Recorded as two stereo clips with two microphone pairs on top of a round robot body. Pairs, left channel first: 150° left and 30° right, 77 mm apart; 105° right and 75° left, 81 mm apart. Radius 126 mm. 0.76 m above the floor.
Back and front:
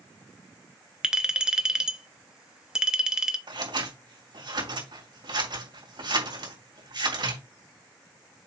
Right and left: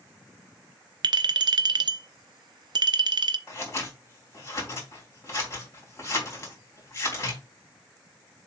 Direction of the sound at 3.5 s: 50° right.